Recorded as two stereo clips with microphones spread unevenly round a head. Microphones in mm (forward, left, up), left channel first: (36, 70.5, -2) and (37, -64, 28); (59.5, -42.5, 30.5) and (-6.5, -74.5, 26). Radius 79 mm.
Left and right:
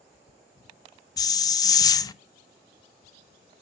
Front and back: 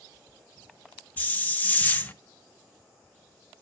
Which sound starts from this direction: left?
A hiss, at 1.2 s.